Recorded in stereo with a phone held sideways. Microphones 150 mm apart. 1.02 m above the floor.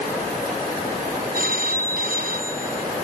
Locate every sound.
1.3 s a phone ringing: 75° right (ahead or behind)